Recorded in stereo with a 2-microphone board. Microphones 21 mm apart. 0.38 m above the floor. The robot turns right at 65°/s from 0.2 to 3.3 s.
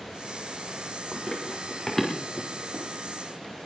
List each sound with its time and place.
1.1 s running footsteps: 75° left (ahead or behind), 4 m; by 2.9 s 60° right (ahead or behind), 4 m